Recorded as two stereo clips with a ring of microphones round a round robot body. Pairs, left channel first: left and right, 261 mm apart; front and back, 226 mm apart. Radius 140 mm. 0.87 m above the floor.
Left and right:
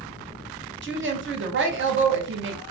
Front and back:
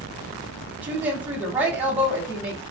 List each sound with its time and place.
0.8 s a woman speaking: 100° right, 0.9 m